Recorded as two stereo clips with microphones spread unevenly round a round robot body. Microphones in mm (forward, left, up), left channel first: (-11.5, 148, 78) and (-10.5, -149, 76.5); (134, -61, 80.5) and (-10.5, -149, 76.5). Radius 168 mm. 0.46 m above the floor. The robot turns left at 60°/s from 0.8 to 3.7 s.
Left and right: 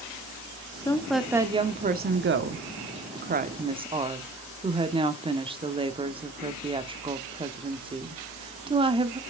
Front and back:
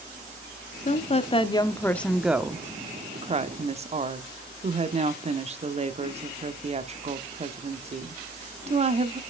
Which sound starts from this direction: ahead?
A woman speaking, at 0.8 s.